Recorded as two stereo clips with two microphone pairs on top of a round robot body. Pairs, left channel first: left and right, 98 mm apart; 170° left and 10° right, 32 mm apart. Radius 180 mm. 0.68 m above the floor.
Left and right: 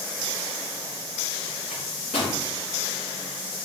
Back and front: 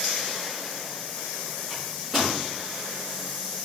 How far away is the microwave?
About 3.5 m.